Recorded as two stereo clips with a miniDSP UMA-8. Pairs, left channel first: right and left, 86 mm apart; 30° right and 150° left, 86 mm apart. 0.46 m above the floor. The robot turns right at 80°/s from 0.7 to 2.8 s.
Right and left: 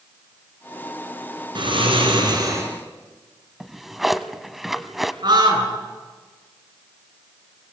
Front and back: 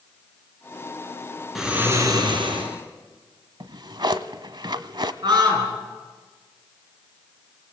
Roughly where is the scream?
Behind left.